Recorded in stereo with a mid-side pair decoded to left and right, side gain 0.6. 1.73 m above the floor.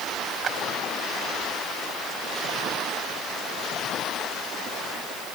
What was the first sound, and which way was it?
A clap, 40° right.